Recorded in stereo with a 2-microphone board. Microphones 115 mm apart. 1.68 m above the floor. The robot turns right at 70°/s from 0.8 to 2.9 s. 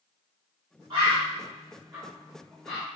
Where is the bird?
45° right (ahead or behind), 1.7 m; by 2.9 s 15° left (ahead or behind), 1.7 m.